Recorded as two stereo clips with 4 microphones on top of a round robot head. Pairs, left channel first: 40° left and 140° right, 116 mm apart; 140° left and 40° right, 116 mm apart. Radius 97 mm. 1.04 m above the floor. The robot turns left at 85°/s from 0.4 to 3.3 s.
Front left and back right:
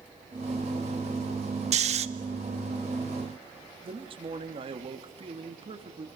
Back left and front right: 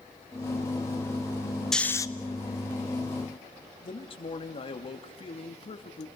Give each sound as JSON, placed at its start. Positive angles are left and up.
{"t": 1.7, "sound": "snoring", "azimuth_deg": -135, "distance_m": 1.1}
{"t": 3.8, "sound": "a man speaking", "azimuth_deg": 180, "distance_m": 2.5}